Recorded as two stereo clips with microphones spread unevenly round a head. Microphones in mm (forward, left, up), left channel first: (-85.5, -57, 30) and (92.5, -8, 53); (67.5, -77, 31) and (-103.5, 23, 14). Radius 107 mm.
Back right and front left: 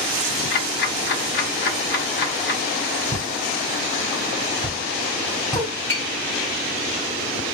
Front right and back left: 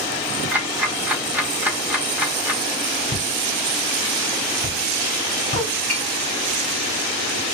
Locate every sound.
0.5 s ticking: 125° right, 1.0 m
3.1 s a pop: 115° left, 4 m
5.9 s tapping: 115° left, 3.5 m